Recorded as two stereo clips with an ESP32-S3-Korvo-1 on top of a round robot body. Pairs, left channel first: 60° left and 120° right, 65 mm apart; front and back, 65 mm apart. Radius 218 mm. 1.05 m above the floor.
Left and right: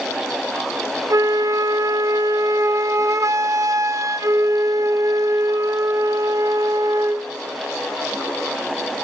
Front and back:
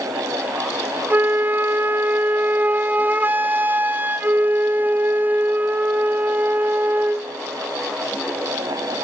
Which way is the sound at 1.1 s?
125° right.